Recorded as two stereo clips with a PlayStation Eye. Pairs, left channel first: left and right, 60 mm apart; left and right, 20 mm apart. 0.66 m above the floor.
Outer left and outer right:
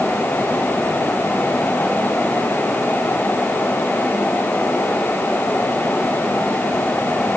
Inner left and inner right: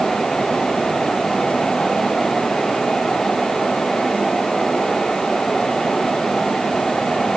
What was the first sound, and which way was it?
Only background noise.